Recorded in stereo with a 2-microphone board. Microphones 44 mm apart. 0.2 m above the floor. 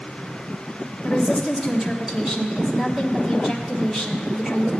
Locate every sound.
1.0 s a woman speaking: 10° right (ahead or behind), 1.3 m